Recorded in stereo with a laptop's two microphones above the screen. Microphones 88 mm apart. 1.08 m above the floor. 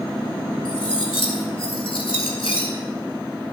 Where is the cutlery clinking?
80° left, 3 m.